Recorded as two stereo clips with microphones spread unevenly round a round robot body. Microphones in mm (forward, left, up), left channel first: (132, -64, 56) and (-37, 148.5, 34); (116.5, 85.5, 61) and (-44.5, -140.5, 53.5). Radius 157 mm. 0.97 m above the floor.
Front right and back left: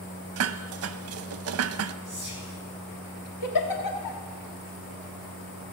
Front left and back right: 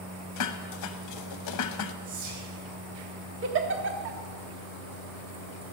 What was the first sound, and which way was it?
Dishes clattering, 90° left.